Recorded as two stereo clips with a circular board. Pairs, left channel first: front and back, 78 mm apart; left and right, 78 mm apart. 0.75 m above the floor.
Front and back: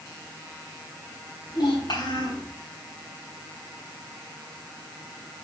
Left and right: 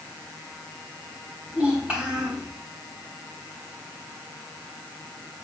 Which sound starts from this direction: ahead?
A child speaking, at 1.5 s.